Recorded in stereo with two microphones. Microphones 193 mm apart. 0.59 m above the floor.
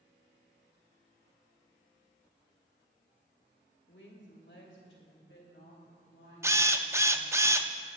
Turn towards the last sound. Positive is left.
turn(degrees=-15)  # may be behind; listen again after turning